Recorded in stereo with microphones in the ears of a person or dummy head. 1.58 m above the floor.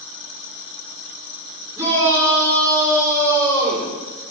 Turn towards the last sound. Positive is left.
turn(degrees=-20)  # may be behind; listen again after turning